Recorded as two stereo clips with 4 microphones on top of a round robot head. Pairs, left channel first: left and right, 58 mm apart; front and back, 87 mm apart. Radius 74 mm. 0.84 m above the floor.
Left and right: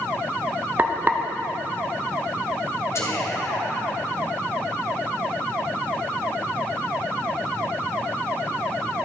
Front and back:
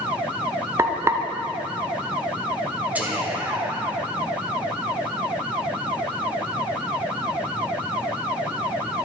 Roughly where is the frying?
Behind right.